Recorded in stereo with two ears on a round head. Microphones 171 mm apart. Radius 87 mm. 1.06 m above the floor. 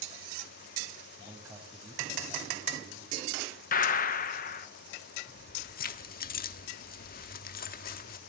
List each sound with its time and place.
1.2 s a man speaking: 10° right (ahead or behind), 6.5 m; by 3.2 s 5° left (ahead or behind), 6.5 m
3.7 s a gunshot: 40° left (ahead or behind), 1.1 m
5.3 s keys jangling: 50° left (ahead or behind), 1.4 m